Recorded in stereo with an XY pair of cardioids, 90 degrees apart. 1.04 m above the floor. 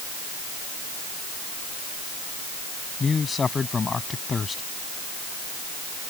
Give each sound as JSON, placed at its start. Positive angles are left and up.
{"t": 3.0, "sound": "a man speaking", "azimuth_deg": 40}